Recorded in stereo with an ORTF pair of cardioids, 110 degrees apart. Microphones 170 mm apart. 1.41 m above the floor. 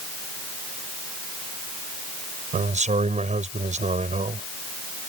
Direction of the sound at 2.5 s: 45° right.